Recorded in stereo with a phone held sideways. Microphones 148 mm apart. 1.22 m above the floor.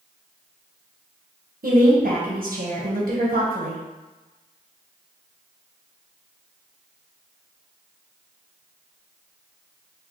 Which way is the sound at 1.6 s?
75° right (ahead or behind).